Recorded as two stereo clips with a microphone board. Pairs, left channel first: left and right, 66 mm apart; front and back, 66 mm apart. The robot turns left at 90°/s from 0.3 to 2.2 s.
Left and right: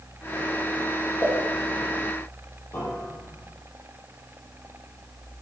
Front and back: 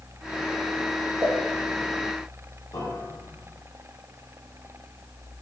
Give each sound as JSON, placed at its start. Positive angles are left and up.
{"t": 1.2, "sound": "a pop", "azimuth_deg": 135, "distance_m": 3.5}
{"t": 2.7, "sound": "a piano", "azimuth_deg": 25, "distance_m": 3.5}